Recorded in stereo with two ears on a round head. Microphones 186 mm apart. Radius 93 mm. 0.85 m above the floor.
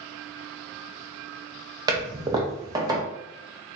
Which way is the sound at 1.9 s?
20° right (ahead or behind).